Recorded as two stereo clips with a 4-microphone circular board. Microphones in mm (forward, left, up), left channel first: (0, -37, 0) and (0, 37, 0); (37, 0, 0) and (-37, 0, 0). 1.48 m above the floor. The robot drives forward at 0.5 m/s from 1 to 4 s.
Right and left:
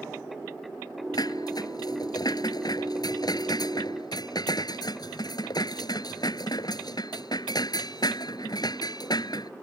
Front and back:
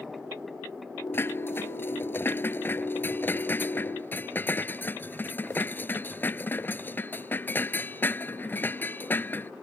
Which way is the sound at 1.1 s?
60° right.